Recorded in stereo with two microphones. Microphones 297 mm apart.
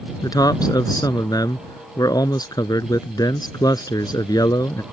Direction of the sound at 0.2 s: 10° left (ahead or behind).